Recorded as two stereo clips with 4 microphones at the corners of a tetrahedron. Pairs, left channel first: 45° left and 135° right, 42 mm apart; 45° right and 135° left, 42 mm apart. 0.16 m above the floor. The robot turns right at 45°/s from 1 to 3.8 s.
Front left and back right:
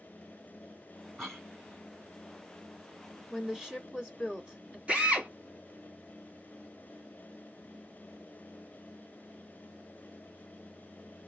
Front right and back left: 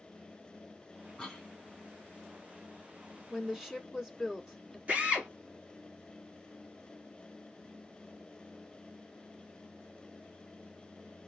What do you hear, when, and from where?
1.2 s a cough: 20° right, 1.3 m; by 1.5 s 10° right, 1.3 m
3.3 s a woman speaking: 175° left, 1.1 m; by 4.8 s 165° right, 1.1 m
4.9 s a drill: 175° left, 1.3 m